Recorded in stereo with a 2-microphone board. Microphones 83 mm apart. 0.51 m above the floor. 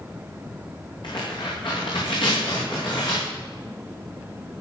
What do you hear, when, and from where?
1.0 s tearing paper: 70° left (ahead or behind), 7 m